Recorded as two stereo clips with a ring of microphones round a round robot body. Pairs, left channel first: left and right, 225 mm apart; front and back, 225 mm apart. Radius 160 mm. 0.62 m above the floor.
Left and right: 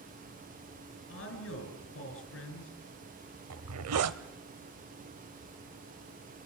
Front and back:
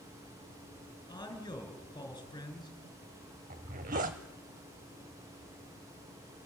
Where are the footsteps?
No footsteps in this recording.